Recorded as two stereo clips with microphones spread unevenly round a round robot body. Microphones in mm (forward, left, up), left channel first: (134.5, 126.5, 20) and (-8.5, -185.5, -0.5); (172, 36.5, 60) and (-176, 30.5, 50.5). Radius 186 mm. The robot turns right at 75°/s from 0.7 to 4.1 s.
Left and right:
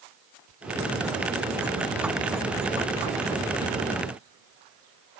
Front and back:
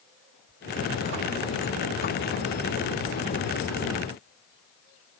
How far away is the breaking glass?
I don't hear breaking glass.